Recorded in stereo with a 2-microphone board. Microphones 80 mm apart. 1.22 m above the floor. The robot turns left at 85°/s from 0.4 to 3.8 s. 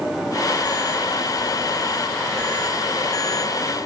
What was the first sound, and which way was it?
Only background noise.